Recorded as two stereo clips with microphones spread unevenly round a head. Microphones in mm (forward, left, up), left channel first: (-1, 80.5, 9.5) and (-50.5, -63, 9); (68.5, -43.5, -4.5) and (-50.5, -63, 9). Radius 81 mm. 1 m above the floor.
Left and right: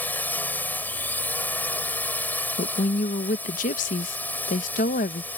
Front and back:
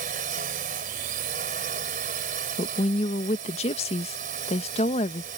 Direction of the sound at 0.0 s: 150° left.